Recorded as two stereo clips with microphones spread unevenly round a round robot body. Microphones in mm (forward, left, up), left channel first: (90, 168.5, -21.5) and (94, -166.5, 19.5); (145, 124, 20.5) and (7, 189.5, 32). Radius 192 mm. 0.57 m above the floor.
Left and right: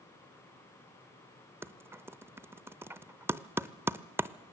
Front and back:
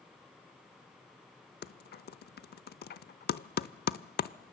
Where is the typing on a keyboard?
5° right, 0.6 m.